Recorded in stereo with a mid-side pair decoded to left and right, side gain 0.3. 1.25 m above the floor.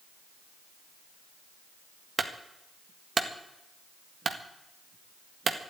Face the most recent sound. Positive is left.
turn(degrees=-55)